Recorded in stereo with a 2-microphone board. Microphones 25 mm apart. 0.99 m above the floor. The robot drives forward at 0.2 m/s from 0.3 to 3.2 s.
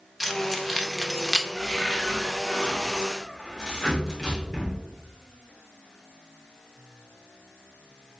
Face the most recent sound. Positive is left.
turn(degrees=25)  # may be behind; listen again after turning